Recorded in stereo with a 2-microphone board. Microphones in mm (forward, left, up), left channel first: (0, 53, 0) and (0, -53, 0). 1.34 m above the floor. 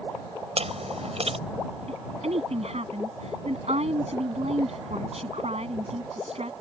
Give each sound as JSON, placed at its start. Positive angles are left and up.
{"t": 0.6, "sound": "chewing", "side_deg": -80}
{"t": 1.9, "sound": "a woman speaking", "side_deg": -85}